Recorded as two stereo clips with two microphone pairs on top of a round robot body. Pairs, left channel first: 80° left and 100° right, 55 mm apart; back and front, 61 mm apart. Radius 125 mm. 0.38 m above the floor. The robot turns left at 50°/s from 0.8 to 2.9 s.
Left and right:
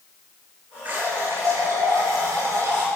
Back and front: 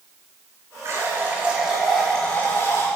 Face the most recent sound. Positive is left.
turn(degrees=-140)